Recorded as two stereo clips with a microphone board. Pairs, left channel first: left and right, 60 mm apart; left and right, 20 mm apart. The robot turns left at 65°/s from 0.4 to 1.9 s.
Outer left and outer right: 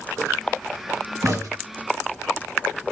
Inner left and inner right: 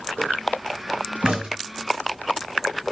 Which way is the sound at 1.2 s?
80° right.